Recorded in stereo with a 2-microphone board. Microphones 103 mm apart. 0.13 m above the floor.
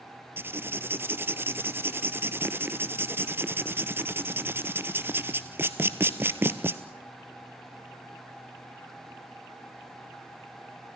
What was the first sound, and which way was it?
Writing, 20° right (ahead or behind).